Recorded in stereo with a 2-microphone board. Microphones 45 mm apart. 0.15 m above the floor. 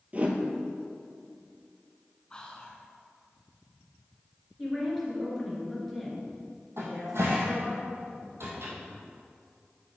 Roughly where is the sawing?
I don't hear sawing.